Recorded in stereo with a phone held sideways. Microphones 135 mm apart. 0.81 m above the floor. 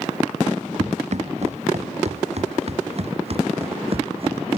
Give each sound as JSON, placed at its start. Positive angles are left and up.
{"t": 0.8, "sound": "running footsteps", "side_deg": -55}